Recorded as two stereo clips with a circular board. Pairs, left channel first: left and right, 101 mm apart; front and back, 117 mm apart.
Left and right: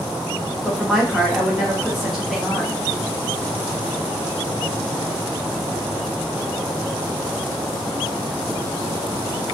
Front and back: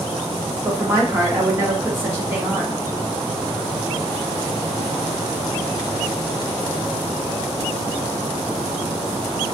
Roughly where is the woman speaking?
Behind.